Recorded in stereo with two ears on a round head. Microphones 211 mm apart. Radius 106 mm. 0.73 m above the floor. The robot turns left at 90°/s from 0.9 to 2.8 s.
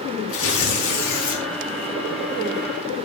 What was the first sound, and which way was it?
Tearing paper, 115° left.